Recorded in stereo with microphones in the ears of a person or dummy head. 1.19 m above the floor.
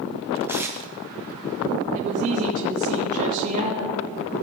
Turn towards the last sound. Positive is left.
turn(degrees=-45)  # may be behind; listen again after turning